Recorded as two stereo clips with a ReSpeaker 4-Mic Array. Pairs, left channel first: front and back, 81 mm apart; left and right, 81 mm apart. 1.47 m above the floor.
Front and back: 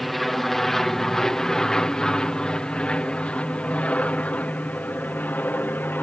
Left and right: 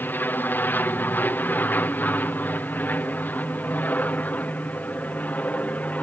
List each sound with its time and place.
0.0 s an aircraft: 85° left; by 6.0 s 40° left